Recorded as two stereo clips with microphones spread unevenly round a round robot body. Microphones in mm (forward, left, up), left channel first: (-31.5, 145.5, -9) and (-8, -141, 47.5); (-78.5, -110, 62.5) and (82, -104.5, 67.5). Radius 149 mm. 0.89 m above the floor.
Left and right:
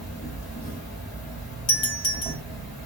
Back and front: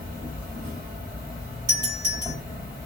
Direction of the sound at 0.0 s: 75° left.